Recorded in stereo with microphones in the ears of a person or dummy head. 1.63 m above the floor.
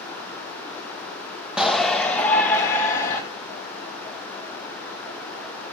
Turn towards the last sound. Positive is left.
turn(degrees=20)  # may be behind; listen again after turning